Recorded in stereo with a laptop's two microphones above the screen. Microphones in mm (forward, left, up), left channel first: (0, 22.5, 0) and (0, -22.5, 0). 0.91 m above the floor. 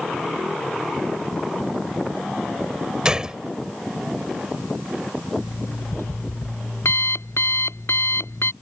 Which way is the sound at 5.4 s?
85° left.